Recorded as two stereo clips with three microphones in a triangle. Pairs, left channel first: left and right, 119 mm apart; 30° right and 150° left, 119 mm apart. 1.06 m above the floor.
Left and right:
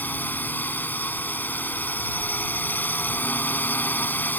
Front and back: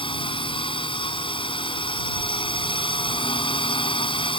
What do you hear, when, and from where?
0.0 s a drone: 15° left